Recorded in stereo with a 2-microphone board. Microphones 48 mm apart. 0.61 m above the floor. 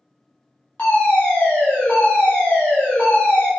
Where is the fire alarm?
20° left (ahead or behind), 1.5 m.